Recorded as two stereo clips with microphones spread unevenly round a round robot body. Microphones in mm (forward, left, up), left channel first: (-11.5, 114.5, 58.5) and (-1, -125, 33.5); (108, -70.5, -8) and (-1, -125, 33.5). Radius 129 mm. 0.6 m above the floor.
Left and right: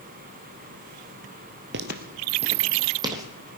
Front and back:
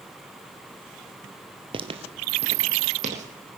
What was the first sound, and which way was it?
Footsteps, 135° right.